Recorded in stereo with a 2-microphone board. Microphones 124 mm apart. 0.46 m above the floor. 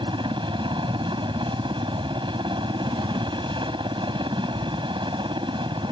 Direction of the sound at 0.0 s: 40° right (ahead or behind).